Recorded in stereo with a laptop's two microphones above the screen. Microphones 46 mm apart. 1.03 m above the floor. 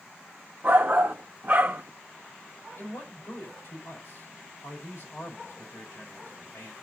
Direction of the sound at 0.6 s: 35° right (ahead or behind).